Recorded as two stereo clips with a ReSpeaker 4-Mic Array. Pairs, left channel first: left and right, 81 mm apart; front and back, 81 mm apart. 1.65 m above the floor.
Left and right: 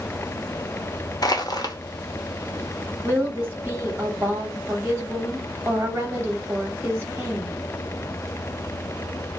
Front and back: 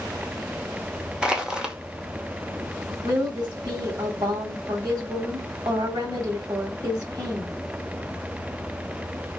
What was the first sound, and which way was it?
Crushing, 100° left.